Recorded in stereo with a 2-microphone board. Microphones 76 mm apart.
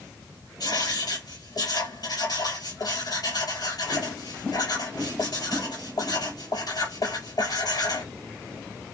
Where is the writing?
65° left (ahead or behind), 2.5 m.